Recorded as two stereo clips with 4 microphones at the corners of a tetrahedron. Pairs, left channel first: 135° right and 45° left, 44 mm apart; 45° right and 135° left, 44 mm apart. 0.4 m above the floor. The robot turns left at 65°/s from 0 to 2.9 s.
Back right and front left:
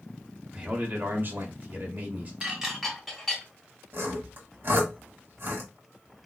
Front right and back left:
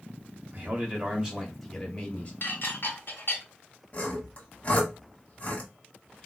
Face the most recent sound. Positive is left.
turn(degrees=10)